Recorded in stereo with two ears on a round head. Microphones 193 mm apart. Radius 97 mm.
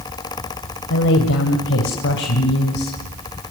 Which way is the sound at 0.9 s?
65° left (ahead or behind).